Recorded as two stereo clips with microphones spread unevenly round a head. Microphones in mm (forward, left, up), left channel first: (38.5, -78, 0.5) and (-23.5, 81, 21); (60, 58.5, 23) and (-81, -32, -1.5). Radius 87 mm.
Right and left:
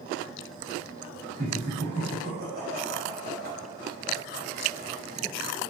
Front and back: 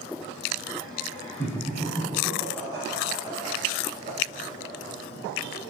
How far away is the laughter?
About 3 m.